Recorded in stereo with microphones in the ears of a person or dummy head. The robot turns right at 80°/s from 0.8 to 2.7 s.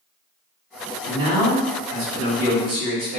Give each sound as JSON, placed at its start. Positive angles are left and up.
{"t": 1.0, "sound": "a man speaking", "azimuth_deg": -165, "distance_m": 1.4}